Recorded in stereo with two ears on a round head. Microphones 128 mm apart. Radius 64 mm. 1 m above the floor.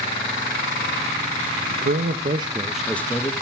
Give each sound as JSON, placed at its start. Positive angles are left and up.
{"t": 1.7, "sound": "a man speaking", "side_deg": -70, "distance_m": 1.0}